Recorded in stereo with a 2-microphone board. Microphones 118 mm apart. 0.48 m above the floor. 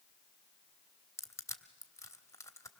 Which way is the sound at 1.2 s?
25° left (ahead or behind).